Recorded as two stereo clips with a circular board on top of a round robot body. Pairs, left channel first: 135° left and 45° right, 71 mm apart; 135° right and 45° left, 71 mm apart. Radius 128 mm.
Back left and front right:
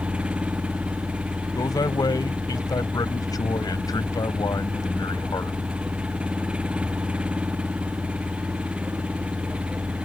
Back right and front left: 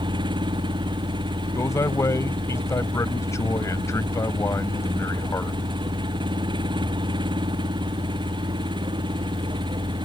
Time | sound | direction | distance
0.0 | an engine running | 30° left | ?
1.6 | a man speaking | 175° left | ?